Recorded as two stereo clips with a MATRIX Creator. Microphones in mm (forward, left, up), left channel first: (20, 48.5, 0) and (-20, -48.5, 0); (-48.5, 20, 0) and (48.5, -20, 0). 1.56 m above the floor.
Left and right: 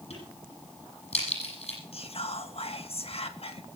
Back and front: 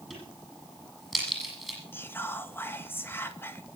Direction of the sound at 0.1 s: 70° left.